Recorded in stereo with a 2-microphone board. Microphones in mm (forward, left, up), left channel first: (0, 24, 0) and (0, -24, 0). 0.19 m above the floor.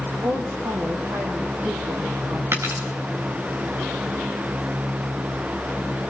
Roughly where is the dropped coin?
Right.